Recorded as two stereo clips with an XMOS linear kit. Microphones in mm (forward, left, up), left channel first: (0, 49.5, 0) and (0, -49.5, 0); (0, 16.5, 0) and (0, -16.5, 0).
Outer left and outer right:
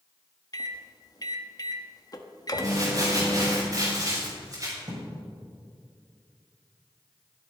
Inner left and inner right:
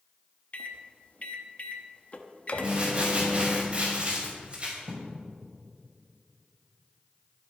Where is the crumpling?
35° right (ahead or behind), 5.5 m.